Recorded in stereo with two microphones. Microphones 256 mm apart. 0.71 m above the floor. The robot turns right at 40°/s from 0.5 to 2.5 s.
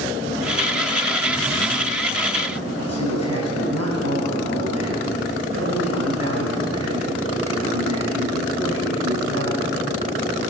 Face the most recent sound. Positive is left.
turn(degrees=-75)  # may be behind; listen again after turning